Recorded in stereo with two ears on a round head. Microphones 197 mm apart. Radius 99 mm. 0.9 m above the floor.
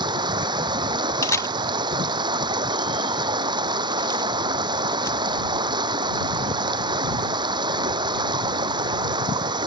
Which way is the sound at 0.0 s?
20° right (ahead or behind).